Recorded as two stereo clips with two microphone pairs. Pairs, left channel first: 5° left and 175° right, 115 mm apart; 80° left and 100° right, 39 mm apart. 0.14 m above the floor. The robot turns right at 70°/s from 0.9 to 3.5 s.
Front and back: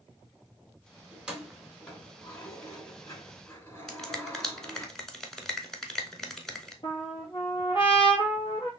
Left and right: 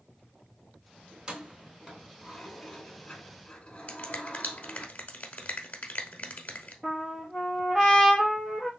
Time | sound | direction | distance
1.1 | keys jangling | 115° right | 1.2 m
3.9 | a finger snap | 90° left | 1.0 m
6.8 | a trumpet | 30° right | 1.6 m